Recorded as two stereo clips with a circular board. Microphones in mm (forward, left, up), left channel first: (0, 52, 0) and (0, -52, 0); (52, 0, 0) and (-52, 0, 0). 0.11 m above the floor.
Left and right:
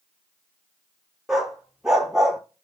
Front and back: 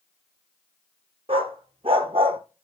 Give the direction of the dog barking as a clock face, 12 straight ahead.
6 o'clock.